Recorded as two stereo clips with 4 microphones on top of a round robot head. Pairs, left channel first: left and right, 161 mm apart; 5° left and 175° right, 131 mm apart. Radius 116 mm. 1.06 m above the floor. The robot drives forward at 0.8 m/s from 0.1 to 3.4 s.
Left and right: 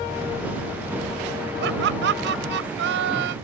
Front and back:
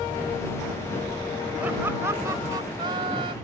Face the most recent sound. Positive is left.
turn(degrees=-110)